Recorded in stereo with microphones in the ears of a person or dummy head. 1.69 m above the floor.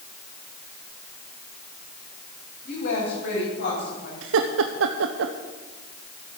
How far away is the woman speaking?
About 8 m.